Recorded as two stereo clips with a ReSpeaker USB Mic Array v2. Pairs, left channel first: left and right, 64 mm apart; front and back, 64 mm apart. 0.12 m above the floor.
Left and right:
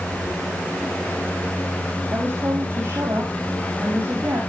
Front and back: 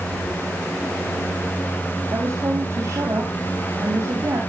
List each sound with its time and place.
2.1 s a woman speaking: 145° right, 5 m